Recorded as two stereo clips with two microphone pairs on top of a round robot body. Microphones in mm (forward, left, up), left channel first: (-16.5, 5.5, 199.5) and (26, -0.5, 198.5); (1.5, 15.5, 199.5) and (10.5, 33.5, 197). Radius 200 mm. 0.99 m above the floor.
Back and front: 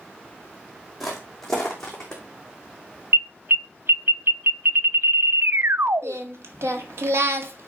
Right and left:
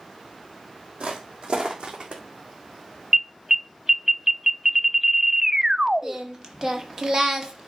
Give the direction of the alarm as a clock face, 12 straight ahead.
12 o'clock.